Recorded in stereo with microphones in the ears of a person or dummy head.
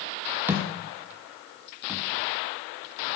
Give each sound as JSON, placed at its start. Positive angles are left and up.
{"t": 0.5, "sound": "a thud", "side_deg": -15, "distance_m": 1.3}